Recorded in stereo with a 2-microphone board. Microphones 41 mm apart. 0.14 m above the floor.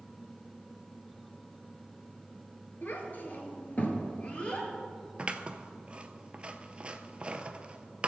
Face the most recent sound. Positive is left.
turn(degrees=-25)  # may be behind; listen again after turning